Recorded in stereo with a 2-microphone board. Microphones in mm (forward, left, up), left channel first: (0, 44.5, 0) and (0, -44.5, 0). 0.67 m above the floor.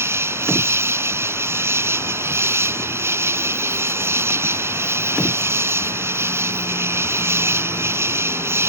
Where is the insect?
30° right (ahead or behind).